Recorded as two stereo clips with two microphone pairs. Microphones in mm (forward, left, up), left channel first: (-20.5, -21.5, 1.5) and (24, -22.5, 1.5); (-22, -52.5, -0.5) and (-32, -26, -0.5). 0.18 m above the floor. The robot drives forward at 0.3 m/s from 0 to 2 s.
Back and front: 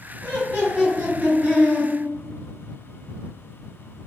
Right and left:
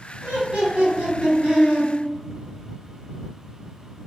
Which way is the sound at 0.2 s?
140° left.